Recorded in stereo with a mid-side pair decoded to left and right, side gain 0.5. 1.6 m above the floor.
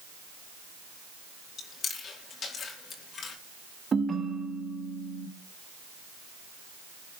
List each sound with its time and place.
1.6 s chewing: 55° left, 4.5 m
3.9 s a ringtone: 35° right, 2.5 m